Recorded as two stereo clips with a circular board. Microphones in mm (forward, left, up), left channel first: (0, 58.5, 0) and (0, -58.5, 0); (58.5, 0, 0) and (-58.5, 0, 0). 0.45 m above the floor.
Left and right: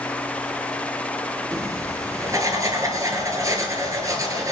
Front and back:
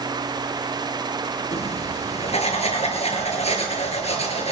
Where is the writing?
25° right, 3 m.